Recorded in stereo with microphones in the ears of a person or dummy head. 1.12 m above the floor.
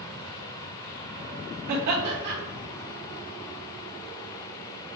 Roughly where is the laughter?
Right.